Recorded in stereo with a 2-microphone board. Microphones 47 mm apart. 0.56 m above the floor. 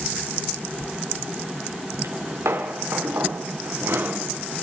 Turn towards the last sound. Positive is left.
turn(degrees=-55)  # may be behind; listen again after turning